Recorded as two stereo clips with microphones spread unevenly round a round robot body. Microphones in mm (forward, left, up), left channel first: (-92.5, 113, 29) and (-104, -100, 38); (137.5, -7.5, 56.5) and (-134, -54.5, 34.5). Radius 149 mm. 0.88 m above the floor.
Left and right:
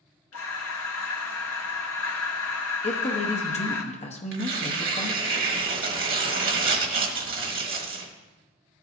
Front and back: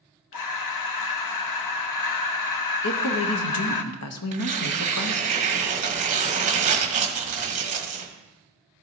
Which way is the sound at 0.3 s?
40° left.